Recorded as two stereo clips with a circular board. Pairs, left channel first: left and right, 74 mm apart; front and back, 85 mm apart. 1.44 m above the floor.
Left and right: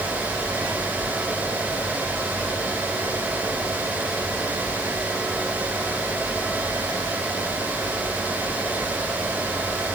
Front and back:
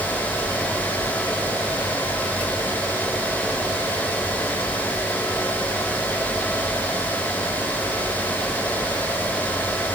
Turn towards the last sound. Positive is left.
No sound to turn to.